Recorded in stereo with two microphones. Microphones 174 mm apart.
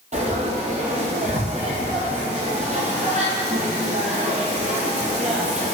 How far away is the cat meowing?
I don't hear a cat meowing.